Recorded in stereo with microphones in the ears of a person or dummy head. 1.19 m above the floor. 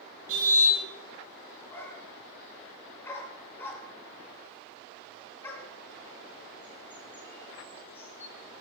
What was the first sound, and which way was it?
A car horn, 80° right.